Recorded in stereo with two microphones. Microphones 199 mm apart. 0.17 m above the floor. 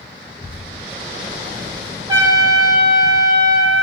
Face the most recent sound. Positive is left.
turn(degrees=-20)  # may be behind; listen again after turning